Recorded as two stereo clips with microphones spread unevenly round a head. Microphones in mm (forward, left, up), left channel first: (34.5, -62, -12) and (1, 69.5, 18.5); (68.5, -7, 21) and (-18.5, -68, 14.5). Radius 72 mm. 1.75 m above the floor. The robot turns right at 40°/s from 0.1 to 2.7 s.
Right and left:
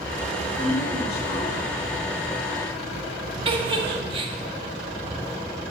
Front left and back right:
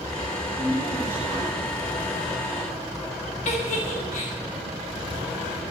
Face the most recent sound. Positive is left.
turn(degrees=65)